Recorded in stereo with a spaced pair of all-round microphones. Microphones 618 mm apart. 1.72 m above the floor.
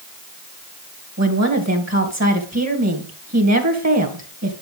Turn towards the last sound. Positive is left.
turn(degrees=-25)  # may be behind; listen again after turning